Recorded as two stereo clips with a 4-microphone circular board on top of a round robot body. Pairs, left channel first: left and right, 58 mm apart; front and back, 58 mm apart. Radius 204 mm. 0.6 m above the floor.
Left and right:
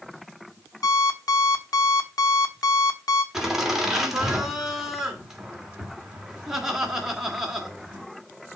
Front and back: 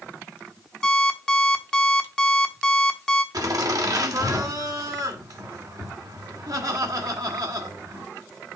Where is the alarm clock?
80° left, 1.2 m.